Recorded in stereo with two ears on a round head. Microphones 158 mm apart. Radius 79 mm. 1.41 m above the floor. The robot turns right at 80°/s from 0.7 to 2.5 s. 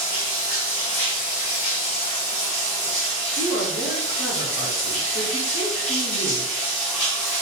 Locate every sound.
0.0 s running water: 30° left, 1.9 m; by 7.4 s 175° left, 1.9 m
3.4 s a woman speaking: 60° left (ahead or behind), 0.8 m